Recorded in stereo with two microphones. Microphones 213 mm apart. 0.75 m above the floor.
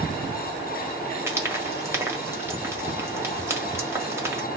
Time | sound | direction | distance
1.3 | frying | 10° right (ahead or behind) | 1.3 m